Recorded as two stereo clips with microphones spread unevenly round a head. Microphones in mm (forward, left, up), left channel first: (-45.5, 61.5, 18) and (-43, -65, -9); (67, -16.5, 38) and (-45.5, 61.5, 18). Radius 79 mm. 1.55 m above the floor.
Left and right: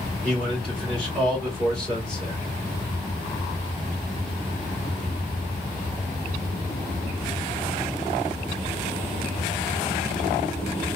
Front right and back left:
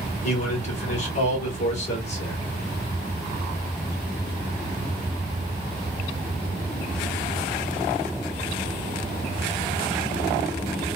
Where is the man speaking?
5° left, 2.5 m.